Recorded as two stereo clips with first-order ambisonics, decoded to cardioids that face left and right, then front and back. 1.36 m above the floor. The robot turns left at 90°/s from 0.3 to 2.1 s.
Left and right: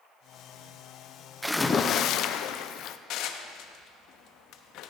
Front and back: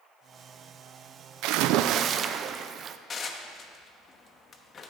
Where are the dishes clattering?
65° left, 1.0 m.